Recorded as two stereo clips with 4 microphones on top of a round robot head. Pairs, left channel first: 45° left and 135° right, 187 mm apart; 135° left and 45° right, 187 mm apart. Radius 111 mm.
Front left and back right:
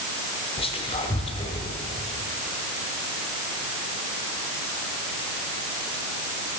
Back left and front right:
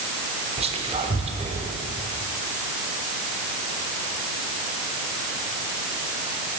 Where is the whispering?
Straight ahead, 1.0 m.